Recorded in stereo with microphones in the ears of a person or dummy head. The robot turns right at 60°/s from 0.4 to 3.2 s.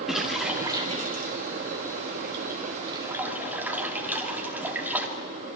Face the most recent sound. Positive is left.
turn(degrees=-15)  # may be behind; listen again after turning